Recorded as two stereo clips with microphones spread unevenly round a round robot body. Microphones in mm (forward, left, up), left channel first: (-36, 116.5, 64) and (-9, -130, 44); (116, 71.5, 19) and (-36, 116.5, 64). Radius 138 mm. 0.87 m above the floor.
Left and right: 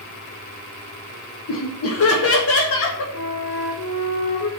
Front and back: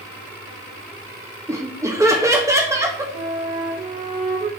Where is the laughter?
85° left, 1.5 m.